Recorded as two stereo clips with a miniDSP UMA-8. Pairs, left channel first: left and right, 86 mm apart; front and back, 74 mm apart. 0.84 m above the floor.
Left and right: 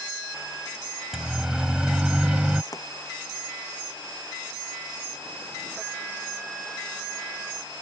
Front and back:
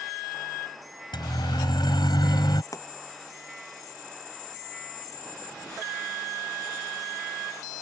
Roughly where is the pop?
Ahead left.